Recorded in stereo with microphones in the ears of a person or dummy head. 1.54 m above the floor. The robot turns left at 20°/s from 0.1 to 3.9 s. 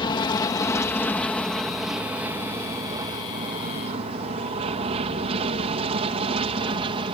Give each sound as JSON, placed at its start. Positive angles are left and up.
{"t": 0.0, "sound": "an aircraft", "side_deg": 30}